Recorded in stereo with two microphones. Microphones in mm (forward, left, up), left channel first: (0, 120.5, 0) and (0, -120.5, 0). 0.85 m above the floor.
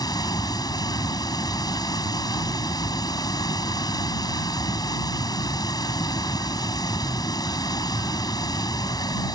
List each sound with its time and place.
0.0 s running water: 15° left (ahead or behind)